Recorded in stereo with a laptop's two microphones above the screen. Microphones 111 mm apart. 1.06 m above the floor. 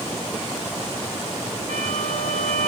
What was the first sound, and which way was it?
A violin, 75° right (ahead or behind).